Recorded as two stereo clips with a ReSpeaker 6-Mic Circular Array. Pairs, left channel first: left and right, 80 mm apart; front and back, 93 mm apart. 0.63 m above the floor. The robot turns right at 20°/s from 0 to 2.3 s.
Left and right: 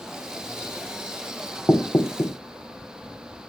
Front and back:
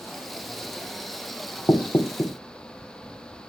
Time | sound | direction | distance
1.7 | knocking | 50° left | 1.0 m